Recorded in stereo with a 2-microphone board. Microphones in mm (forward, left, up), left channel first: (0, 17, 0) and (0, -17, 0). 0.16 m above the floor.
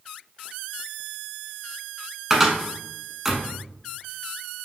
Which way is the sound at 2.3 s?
15° right (ahead or behind).